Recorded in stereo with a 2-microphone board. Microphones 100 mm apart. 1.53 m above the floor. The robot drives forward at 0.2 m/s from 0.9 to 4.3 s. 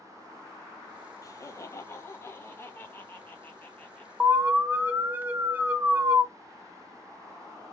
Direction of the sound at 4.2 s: 15° right (ahead or behind).